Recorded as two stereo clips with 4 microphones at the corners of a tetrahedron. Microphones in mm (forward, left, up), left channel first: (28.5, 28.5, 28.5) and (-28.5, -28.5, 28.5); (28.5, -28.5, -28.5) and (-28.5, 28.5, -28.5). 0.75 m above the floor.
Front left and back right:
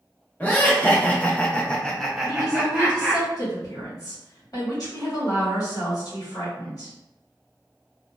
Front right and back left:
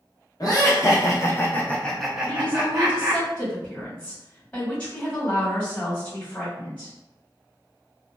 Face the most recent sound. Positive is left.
turn(degrees=25)